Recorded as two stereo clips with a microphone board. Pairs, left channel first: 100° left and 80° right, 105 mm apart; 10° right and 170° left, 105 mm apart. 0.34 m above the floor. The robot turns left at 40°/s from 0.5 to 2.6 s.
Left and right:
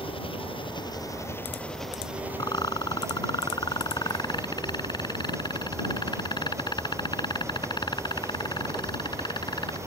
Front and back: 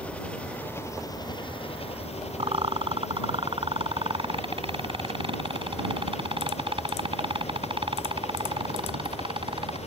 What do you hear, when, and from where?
0.0 s an engine running: 65° left; by 9.9 s 15° right
2.4 s a rattle: 150° left; by 9.8 s 140° left